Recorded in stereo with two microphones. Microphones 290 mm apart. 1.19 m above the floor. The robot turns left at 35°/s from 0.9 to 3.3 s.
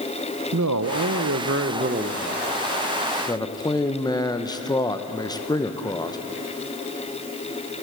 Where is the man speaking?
110° right, 0.7 m; by 6.2 s 165° left, 0.7 m.